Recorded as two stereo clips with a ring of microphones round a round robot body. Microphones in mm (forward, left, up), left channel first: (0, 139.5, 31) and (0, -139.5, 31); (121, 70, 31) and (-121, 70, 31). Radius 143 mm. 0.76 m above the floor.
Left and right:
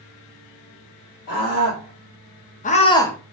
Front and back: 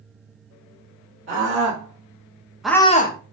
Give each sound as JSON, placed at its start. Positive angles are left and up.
{"t": 1.3, "sound": "a scream", "azimuth_deg": 150, "distance_m": 2.0}